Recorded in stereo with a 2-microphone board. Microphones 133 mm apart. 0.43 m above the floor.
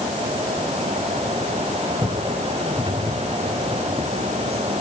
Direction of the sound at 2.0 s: 40° right (ahead or behind).